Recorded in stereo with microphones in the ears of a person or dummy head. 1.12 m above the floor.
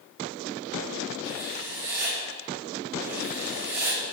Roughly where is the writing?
Centre.